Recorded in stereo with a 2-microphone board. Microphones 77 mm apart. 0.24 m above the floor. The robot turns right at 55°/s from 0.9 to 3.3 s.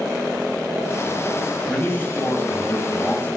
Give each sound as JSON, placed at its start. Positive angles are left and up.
{"t": 1.7, "sound": "a man speaking", "side_deg": 20, "distance_m": 1.5}